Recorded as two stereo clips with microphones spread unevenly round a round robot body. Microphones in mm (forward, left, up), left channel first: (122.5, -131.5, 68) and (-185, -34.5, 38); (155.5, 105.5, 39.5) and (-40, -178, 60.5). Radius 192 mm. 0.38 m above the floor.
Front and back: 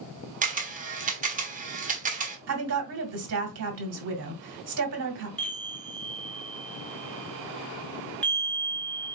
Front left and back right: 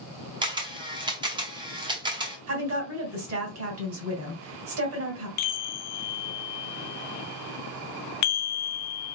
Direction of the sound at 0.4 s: 165° left.